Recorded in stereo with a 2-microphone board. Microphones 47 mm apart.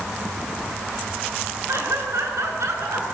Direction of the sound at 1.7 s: 80° right.